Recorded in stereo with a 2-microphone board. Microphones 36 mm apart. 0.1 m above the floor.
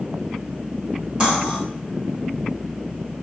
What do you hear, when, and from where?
1.2 s cutlery clinking: 25° right (ahead or behind), 1.2 m